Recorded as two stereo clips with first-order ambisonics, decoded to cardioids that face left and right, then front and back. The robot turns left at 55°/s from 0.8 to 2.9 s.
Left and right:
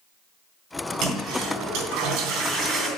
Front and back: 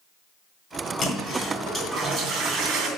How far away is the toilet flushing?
About 3 m.